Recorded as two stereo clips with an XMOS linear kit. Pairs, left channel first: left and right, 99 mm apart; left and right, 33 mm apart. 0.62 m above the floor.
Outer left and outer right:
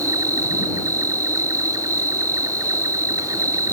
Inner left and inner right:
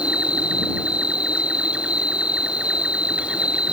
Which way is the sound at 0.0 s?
40° right (ahead or behind).